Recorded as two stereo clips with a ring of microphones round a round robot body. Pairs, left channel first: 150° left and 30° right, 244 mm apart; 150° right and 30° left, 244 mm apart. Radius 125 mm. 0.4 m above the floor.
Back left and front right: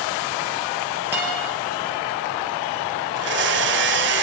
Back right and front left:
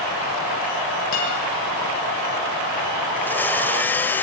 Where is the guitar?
110° right, 9 m.